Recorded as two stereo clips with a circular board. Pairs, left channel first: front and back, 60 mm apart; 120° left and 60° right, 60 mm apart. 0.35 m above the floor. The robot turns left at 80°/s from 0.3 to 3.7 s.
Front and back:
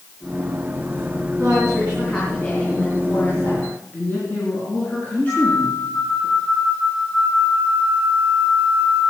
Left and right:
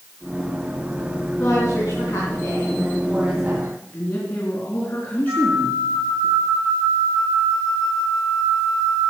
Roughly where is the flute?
Ahead right.